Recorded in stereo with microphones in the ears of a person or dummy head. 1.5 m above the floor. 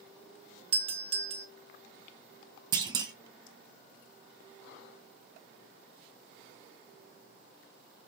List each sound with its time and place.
0.7 s a doorbell: 30° right (ahead or behind), 1.1 m
2.7 s a clunk: 20° right (ahead or behind), 0.6 m